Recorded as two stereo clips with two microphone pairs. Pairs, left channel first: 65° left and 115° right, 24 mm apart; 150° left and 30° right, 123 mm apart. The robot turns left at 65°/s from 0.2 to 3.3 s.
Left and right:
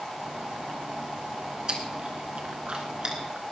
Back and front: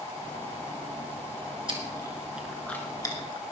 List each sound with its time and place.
1.7 s chewing: 65° right, 3 m; by 3.4 s 170° right, 3 m